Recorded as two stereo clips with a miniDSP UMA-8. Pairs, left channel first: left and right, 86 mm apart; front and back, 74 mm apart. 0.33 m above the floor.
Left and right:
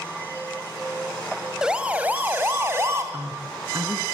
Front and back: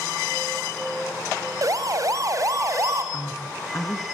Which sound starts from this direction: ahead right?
A man speaking, at 3.1 s.